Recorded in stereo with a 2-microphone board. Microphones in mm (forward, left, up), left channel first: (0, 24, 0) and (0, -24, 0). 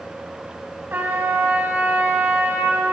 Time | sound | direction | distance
0.9 | a trumpet | 45° right (ahead or behind) | 3 m